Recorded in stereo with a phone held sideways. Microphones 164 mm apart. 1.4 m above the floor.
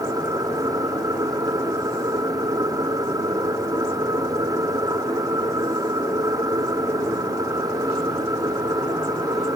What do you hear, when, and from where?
0.0 s a machine running: 25° right (ahead or behind)